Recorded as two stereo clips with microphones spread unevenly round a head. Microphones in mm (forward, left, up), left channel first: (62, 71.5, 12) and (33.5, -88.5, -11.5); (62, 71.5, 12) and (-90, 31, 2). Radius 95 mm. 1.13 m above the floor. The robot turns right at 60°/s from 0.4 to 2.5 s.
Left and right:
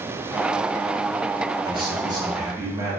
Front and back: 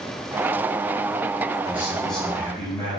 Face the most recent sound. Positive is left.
turn(degrees=-55)